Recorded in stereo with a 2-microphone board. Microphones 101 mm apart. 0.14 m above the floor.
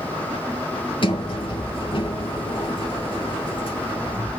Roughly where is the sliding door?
Left.